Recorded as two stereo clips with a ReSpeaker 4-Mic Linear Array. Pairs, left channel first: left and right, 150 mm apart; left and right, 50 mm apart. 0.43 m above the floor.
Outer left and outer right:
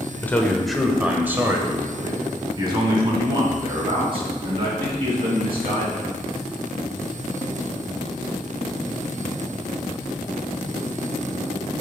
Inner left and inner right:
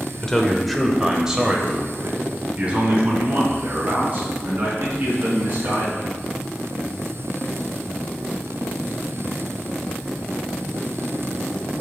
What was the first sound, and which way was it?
A man speaking, 15° left (ahead or behind).